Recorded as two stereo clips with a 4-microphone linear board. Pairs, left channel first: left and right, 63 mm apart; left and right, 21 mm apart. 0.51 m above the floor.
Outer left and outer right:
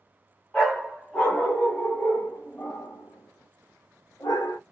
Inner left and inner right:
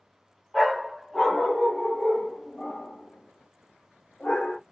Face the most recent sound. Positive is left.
turn(degrees=70)  # may be behind; listen again after turning